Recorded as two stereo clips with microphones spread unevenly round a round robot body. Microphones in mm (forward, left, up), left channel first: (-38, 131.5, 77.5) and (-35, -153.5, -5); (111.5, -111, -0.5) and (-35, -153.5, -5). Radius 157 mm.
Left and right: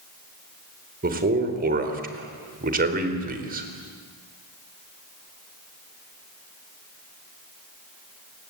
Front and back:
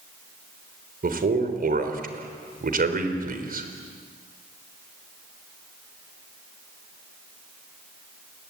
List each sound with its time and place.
1.0 s a man speaking: 145° right, 3.5 m